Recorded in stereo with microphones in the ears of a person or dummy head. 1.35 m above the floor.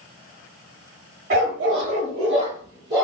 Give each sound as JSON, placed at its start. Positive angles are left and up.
{"t": 1.3, "sound": "a dog barking", "side_deg": -50, "distance_m": 1.6}